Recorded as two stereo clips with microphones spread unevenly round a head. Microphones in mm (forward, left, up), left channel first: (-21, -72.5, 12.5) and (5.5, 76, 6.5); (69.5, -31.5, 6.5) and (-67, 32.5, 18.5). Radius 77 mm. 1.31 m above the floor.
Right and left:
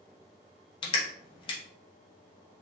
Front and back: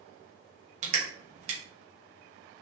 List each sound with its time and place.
0.8 s crushing: 155° right, 1.3 m